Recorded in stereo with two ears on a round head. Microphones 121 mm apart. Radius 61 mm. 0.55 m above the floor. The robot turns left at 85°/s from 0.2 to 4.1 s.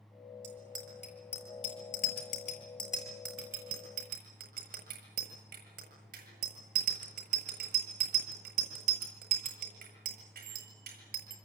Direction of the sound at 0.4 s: 65° right (ahead or behind).